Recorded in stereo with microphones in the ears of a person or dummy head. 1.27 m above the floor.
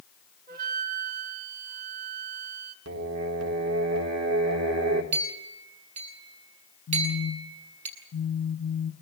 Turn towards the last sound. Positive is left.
turn(degrees=35)  # may be behind; listen again after turning